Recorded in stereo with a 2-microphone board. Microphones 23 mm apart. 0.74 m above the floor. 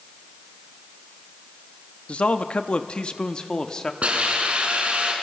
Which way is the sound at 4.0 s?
55° right (ahead or behind).